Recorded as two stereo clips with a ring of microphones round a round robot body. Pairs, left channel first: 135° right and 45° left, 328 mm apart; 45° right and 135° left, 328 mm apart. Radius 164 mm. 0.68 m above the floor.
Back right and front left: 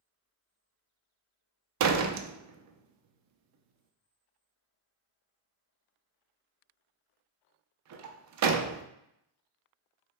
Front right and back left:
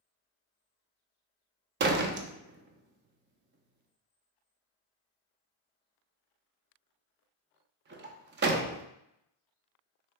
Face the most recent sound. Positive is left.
turn(degrees=80)